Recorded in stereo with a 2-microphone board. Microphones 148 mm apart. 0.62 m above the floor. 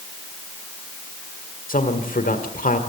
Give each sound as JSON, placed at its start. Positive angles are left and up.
{"t": 1.7, "sound": "a man speaking", "side_deg": 70, "distance_m": 1.7}